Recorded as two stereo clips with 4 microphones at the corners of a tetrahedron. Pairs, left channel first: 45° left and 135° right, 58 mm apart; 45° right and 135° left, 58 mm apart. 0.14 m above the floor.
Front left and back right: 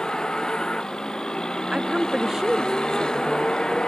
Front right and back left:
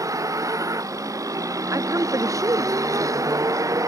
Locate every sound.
0.0 s a vehicle: 125° left
1.7 s a woman speaking: 145° left